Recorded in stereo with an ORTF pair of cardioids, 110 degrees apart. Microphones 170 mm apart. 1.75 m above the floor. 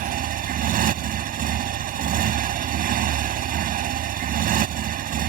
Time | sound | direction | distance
0.0 | a motorcycle | 65° right | ?